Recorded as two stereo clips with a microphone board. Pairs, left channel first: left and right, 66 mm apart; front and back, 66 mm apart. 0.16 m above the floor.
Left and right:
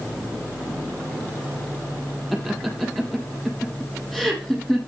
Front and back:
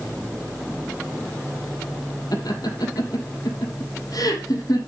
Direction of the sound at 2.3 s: Straight ahead.